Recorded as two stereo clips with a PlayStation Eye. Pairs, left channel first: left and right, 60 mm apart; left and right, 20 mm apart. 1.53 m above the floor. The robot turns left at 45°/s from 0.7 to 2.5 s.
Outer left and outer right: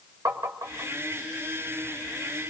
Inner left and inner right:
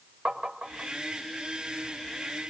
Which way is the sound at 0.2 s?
55° right (ahead or behind).